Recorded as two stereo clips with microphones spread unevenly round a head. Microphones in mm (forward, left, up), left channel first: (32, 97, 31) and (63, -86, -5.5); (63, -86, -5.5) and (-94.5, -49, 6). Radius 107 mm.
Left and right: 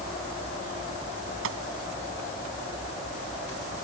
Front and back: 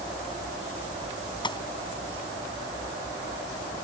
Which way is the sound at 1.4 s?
75° right.